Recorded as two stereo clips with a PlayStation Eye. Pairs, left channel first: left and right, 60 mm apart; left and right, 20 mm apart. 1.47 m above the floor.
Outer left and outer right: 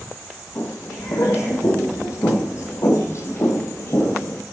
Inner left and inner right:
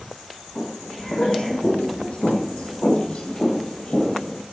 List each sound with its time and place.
0.6 s footsteps: 55° left (ahead or behind), 3.5 m; by 4.4 s 40° left (ahead or behind), 1.9 m